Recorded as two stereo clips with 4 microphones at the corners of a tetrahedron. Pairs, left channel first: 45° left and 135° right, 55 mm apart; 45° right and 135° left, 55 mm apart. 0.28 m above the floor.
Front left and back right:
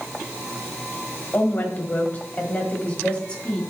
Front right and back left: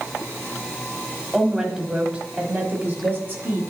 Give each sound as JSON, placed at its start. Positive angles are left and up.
{"t": 1.3, "sound": "a woman speaking", "azimuth_deg": 55, "distance_m": 1.4}